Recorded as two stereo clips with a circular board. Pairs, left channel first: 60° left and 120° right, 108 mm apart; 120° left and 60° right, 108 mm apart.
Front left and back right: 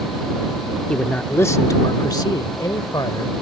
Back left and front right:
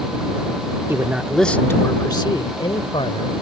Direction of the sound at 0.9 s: 15° right.